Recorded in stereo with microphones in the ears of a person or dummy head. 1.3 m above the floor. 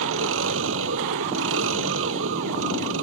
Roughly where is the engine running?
Right.